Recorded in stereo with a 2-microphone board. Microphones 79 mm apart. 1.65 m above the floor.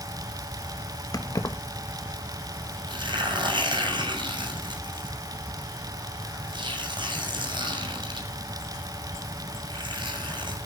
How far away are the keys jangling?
About 1.4 m.